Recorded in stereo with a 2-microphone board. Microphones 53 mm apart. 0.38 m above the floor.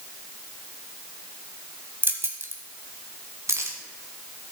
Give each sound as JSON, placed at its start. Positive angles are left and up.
{"t": 2.0, "sound": "keys jangling", "side_deg": -40, "distance_m": 1.3}